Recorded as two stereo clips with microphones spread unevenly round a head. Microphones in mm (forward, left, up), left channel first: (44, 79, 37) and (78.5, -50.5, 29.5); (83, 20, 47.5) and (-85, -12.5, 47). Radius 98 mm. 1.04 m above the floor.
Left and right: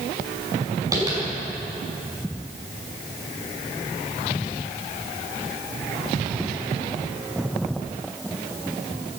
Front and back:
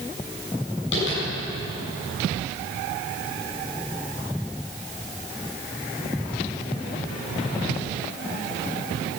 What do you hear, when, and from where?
0.9 s tapping: 10° right, 7 m